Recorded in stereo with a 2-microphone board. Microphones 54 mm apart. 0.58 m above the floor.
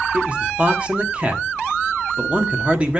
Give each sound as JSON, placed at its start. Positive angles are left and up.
{"t": 0.1, "sound": "a man speaking", "side_deg": -25, "distance_m": 1.1}